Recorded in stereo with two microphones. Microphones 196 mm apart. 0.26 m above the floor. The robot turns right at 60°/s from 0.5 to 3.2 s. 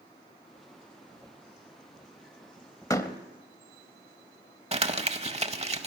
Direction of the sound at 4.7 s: 30° right (ahead or behind).